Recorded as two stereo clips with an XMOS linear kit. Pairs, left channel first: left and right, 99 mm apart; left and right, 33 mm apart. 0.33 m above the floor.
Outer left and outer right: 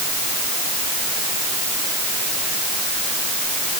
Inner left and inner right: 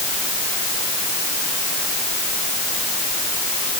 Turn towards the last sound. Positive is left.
No sound to turn to.